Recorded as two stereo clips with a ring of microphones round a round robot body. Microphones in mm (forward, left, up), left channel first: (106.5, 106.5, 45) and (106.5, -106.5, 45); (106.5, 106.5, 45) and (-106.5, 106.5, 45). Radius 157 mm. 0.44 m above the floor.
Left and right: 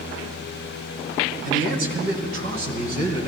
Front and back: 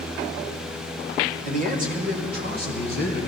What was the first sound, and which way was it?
A man speaking, 135° right.